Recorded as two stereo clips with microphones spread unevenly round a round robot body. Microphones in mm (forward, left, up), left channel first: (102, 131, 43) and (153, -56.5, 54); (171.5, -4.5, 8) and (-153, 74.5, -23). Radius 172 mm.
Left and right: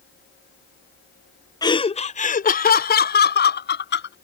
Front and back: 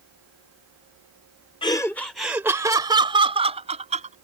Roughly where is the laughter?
Ahead left.